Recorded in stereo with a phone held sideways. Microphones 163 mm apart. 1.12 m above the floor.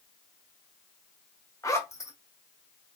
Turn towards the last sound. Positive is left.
turn(degrees=20)  # may be behind; listen again after turning